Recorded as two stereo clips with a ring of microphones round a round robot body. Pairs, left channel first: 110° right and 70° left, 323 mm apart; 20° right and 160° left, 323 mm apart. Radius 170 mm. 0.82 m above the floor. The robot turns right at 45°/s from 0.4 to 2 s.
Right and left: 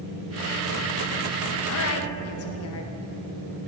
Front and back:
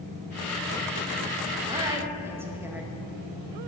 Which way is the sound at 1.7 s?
135° right.